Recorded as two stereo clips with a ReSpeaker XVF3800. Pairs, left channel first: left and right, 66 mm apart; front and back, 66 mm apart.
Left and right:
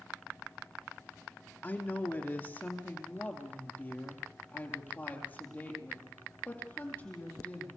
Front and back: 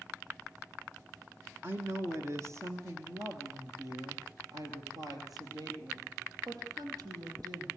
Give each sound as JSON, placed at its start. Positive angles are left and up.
{"t": 1.6, "sound": "a woman speaking", "azimuth_deg": 140, "distance_m": 1.9}